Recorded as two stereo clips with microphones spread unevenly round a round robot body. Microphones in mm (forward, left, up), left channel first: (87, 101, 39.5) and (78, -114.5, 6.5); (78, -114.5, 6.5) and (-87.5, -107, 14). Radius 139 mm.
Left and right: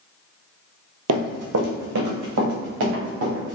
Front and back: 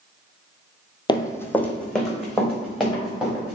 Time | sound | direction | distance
1.1 | running footsteps | 70° right | 0.7 m